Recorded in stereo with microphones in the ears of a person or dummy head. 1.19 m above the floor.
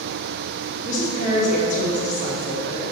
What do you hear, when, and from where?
0.8 s a woman speaking: 45° left (ahead or behind), 2 m